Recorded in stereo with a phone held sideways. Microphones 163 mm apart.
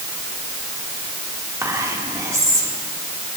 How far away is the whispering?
About 2.5 m.